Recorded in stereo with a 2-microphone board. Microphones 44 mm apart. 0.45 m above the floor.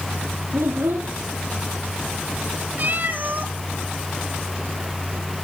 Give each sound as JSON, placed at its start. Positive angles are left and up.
{"t": 0.5, "sound": "a child speaking", "side_deg": -75, "distance_m": 1.7}
{"t": 2.8, "sound": "a cat meowing", "side_deg": -45, "distance_m": 1.7}